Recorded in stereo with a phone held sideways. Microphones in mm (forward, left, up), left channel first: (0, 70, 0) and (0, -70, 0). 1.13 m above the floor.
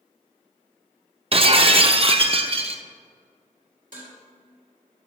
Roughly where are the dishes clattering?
Right.